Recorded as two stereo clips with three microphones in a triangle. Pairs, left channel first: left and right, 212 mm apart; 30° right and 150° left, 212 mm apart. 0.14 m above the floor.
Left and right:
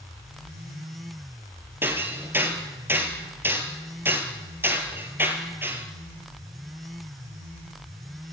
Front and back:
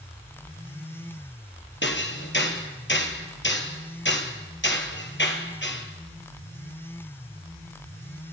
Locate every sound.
1.8 s hammering: 10° right, 3 m